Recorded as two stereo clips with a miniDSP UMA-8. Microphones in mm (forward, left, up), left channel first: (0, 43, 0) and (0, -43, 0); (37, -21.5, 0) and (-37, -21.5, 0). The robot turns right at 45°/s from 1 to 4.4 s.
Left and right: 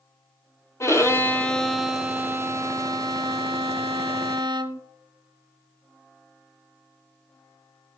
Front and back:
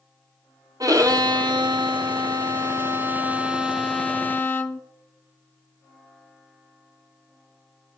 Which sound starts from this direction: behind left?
A violin, at 0.8 s.